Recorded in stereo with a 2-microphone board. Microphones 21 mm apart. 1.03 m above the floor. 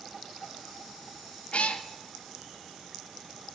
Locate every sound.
1.5 s a cat meowing: 65° left (ahead or behind), 0.6 m